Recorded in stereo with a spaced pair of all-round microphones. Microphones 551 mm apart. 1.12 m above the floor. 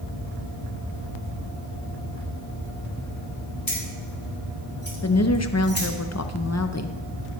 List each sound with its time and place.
3.7 s keys jangling: 40° left (ahead or behind), 3.5 m; by 5.9 s 25° left (ahead or behind), 2 m
5.0 s a woman speaking: 30° left (ahead or behind), 0.6 m